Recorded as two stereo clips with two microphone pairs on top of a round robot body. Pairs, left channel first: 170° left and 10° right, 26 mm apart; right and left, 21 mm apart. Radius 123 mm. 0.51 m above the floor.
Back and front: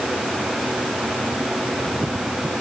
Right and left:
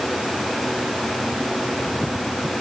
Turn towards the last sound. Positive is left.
No sound to turn to.